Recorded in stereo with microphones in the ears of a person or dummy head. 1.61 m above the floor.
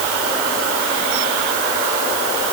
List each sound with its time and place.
Only background noise.